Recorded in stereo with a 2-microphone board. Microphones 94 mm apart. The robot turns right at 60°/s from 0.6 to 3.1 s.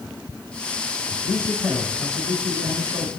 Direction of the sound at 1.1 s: 130° left.